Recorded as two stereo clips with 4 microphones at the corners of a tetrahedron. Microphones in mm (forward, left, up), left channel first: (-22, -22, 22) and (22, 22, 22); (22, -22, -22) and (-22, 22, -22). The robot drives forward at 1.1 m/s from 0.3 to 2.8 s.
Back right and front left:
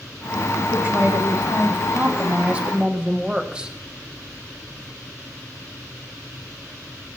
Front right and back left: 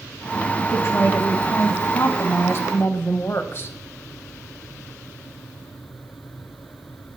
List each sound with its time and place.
0.7 s a woman speaking: 5° right, 3.5 m; by 3.8 s 25° right, 1.4 m